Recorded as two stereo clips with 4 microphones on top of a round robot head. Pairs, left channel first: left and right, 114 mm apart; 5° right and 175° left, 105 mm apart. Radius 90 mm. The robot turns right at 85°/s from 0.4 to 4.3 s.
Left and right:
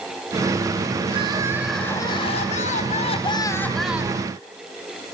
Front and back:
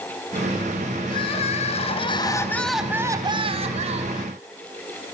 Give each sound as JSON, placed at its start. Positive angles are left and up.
{"t": 1.1, "sound": "crying", "azimuth_deg": -55, "distance_m": 3.0}